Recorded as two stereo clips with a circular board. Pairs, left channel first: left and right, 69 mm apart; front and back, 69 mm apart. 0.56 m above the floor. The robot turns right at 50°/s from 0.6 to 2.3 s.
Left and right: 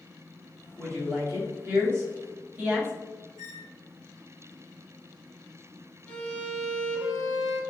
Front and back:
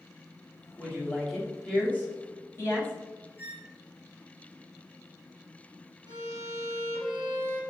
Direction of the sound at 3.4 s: 65° right.